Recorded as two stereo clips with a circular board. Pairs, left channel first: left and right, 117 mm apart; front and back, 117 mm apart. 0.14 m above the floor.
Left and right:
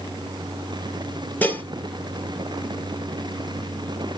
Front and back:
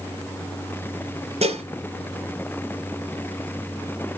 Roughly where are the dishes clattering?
Behind.